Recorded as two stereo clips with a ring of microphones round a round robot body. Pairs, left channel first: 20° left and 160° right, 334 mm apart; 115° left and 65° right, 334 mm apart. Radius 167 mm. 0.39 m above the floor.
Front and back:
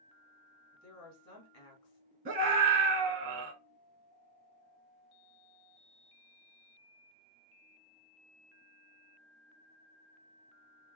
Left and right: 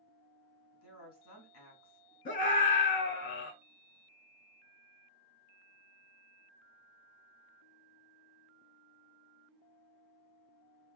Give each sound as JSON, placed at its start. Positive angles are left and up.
{"t": 0.7, "sound": "a woman speaking", "azimuth_deg": 65, "distance_m": 2.5}
{"t": 2.2, "sound": "a scream", "azimuth_deg": 160, "distance_m": 0.9}